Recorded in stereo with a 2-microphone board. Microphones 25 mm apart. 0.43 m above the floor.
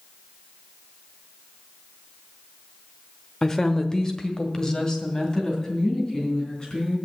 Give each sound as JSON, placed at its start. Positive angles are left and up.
{"t": 3.4, "sound": "a woman speaking", "side_deg": 20, "distance_m": 0.9}